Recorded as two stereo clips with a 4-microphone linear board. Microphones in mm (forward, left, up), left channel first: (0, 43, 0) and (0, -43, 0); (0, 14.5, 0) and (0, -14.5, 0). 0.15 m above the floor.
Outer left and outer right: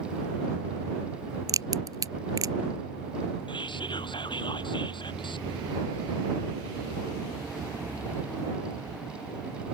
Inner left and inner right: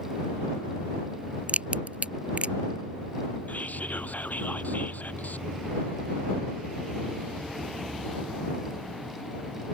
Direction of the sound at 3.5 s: 70° left (ahead or behind).